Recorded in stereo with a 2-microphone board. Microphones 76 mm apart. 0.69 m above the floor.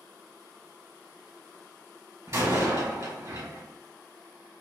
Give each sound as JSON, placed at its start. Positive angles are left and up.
{"t": 2.3, "sound": "a door slam", "side_deg": -45, "distance_m": 1.4}